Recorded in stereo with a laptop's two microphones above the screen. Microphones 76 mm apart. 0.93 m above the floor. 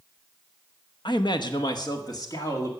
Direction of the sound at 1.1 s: 65° left (ahead or behind).